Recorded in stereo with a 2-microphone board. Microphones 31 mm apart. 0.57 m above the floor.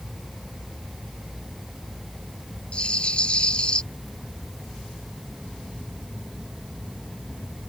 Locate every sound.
2.7 s a rattle: 35° left (ahead or behind)